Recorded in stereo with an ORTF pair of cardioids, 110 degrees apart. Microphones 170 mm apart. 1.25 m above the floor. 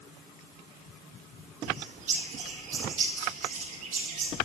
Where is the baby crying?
No baby crying in this recording.